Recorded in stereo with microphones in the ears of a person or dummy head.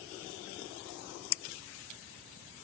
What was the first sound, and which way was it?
Only background noise.